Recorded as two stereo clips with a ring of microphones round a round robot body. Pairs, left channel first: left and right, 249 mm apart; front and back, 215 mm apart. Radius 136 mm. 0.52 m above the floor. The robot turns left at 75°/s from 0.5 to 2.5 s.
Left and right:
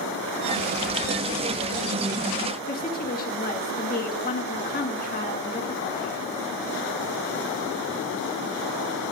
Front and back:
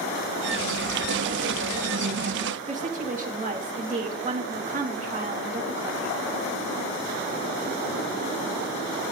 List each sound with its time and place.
2.7 s a woman speaking: 135° left, 1.8 m